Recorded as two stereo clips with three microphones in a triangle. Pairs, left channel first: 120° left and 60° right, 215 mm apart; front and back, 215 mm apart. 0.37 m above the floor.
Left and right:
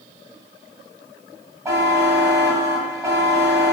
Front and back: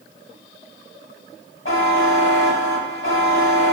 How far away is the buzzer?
About 0.6 m.